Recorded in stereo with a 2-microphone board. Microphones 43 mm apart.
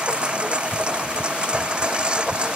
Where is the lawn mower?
25° right (ahead or behind).